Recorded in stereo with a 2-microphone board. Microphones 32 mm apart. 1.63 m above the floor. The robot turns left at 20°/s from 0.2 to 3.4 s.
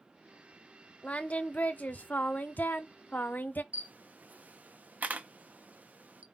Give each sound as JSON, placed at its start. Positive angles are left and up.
{"t": 1.0, "sound": "singing", "azimuth_deg": 130, "distance_m": 0.5}
{"t": 3.7, "sound": "a camera shutter", "side_deg": -60, "distance_m": 0.6}